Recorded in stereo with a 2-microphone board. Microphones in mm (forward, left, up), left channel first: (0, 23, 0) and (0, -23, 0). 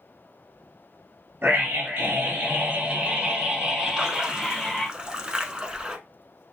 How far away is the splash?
About 0.8 m.